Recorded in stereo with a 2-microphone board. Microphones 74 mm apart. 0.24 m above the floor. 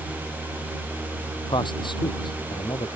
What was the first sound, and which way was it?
A man speaking, 80° left.